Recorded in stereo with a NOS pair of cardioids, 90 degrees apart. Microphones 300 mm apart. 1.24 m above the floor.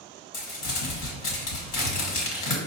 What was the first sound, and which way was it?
Crumpling, 65° left.